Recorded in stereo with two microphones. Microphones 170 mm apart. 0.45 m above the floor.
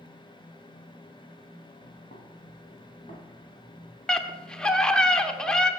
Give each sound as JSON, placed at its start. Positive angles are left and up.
{"t": 1.8, "sound": "footsteps", "side_deg": 50, "distance_m": 4.0}
{"t": 4.1, "sound": "a scream", "side_deg": 5, "distance_m": 0.7}